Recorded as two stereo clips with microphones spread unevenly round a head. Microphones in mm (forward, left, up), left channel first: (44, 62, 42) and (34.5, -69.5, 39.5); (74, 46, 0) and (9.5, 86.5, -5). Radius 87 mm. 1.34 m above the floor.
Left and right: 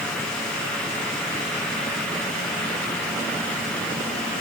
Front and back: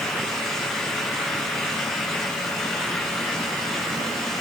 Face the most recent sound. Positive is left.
No sound to turn to.